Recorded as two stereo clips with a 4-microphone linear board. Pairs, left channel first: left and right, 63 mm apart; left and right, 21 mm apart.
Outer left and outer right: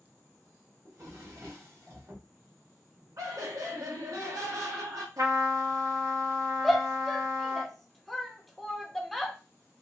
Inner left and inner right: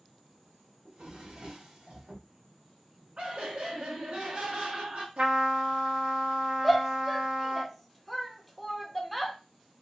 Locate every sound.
0.8 s a drawer: 60° right (ahead or behind), 1.6 m
3.2 s laughter: 65° right (ahead or behind), 1.4 m
5.2 s a trumpet: 70° right (ahead or behind), 1.1 m
6.6 s a shout: centre (ahead or behind), 0.6 m